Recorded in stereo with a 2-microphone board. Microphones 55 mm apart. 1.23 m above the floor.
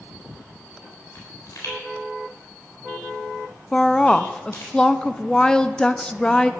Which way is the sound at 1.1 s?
65° left (ahead or behind).